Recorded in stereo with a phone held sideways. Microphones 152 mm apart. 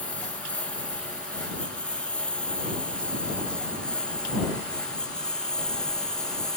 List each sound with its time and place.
0.0 s a lawn mower: 10° left (ahead or behind); by 6.6 s 5° left (ahead or behind)